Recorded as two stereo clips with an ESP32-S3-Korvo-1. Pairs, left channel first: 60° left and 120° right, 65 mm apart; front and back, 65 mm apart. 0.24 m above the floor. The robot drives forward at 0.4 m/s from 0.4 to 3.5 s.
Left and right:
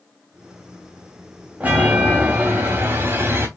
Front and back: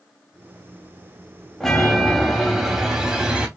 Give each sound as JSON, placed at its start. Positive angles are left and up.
{"t": 1.6, "sound": "a chime", "azimuth_deg": -80, "distance_m": 1.7}